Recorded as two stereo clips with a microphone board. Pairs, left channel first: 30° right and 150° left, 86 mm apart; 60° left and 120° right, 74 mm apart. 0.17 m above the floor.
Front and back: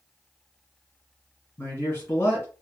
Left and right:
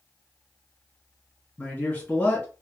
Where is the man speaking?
10° left, 1.9 m.